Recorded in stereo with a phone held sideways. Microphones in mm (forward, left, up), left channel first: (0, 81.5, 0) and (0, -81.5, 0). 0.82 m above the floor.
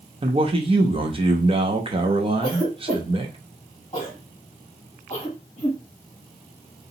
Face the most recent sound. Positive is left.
turn(degrees=25)  # may be behind; listen again after turning